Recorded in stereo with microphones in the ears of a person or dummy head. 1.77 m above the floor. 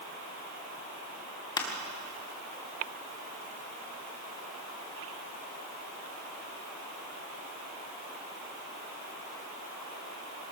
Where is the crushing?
25° left (ahead or behind), 2 m.